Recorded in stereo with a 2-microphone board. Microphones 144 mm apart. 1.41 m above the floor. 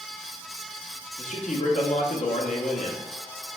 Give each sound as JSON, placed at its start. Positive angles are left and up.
{"t": 1.2, "sound": "a man speaking", "side_deg": 60, "distance_m": 0.7}